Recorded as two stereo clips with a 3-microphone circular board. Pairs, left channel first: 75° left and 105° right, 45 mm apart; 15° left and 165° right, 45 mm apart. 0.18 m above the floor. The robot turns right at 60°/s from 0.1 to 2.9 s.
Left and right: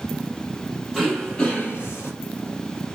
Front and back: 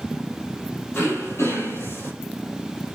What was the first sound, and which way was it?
Throat clearing, 25° right.